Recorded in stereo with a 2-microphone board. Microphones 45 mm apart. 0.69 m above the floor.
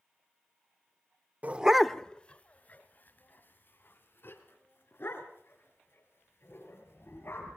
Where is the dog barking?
35° right (ahead or behind), 0.7 m; by 7.6 s 55° left (ahead or behind), 7.5 m.